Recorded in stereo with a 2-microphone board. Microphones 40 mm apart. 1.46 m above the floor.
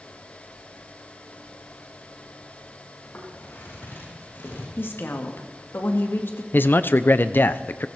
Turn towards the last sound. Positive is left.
turn(degrees=55)  # may be behind; listen again after turning